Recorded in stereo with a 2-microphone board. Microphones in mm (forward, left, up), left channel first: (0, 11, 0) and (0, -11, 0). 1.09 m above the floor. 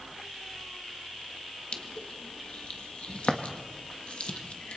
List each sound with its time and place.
1.7 s crushing: 55° left (ahead or behind), 1.6 m